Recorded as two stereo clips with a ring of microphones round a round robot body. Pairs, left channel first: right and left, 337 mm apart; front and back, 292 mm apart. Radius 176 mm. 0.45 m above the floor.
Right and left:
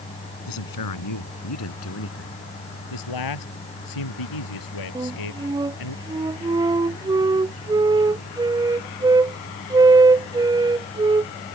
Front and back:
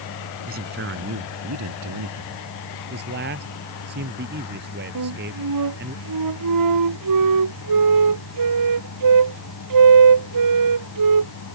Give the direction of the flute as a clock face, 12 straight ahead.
6 o'clock.